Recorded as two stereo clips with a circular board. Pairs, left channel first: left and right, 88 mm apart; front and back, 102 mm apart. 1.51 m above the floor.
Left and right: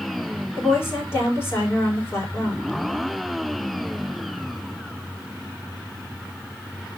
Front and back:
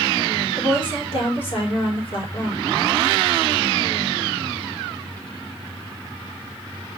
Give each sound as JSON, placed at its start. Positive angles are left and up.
{"t": 0.6, "sound": "a woman speaking", "azimuth_deg": 25, "distance_m": 4.5}